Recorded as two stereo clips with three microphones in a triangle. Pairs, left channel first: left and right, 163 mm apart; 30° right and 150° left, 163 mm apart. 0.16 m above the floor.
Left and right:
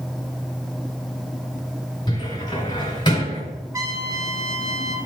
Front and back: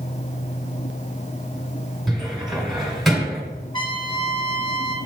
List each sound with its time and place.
2.1 s a cupboard door: 60° left, 1.8 m
3.7 s a trumpet: 45° right, 1.6 m